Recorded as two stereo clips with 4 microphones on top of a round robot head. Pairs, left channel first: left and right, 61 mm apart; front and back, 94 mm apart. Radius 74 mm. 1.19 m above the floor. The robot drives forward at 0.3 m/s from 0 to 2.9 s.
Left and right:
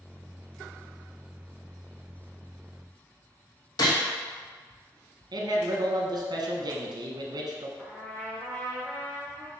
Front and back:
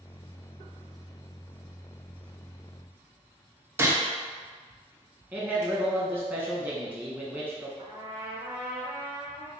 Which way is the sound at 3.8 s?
115° left.